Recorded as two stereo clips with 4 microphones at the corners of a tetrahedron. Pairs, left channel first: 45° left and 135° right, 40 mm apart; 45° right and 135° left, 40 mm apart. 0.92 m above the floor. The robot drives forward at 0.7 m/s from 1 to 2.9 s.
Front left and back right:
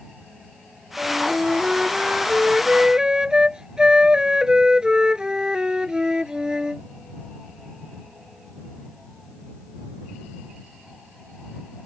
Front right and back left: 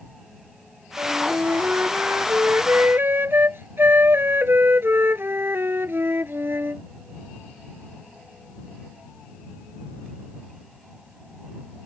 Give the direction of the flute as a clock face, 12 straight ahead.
7 o'clock.